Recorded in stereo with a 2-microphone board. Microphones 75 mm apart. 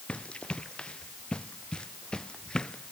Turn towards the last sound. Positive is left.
turn(degrees=10)  # may be behind; listen again after turning